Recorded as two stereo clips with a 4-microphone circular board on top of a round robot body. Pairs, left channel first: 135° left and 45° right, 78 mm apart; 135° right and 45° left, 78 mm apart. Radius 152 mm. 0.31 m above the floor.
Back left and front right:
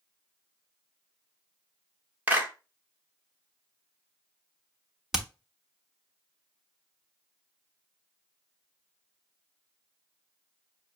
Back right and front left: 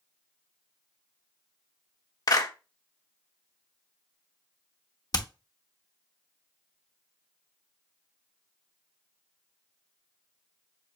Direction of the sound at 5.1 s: 130° right.